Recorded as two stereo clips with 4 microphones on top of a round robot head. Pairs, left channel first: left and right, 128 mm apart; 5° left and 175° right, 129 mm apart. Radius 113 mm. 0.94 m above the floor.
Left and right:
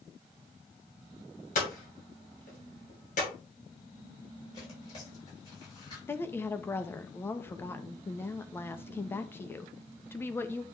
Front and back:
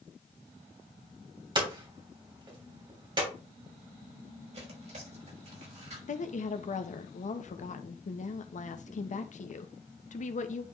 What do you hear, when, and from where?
1.6 s hammering: 130° left, 3 m
4.5 s tearing paper: 155° left, 5 m
6.1 s a woman speaking: 15° left, 0.9 m